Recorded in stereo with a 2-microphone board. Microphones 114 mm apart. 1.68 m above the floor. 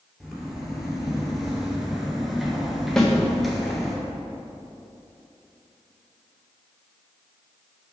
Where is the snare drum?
5° left (ahead or behind), 1.3 m.